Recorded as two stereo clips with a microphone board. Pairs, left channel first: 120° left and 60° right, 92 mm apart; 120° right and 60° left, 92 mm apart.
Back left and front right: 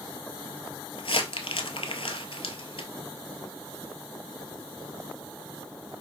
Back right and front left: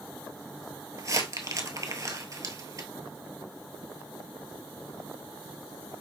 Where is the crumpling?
115° left, 0.8 m.